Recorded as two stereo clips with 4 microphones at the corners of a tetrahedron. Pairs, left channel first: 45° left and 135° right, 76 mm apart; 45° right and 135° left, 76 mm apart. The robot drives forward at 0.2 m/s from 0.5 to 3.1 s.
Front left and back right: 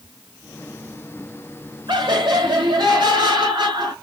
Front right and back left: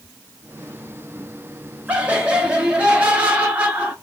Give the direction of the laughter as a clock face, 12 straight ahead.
5 o'clock.